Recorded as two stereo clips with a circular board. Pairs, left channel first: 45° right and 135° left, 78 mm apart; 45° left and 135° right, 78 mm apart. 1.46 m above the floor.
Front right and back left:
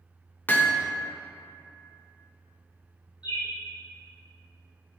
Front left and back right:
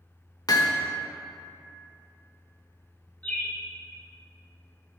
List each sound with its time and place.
0.5 s hammering: 20° left, 1.0 m
3.2 s a bird: 25° right, 2.5 m